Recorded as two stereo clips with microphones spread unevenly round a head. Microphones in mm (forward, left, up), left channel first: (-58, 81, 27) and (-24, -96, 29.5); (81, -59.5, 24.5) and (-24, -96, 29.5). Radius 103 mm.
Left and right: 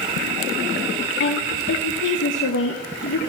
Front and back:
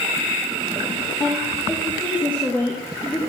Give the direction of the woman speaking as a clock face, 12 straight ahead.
9 o'clock.